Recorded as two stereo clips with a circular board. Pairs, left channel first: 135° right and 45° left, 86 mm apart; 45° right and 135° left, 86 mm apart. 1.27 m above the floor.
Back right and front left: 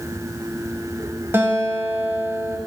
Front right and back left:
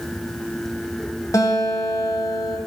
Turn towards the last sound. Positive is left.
turn(degrees=-5)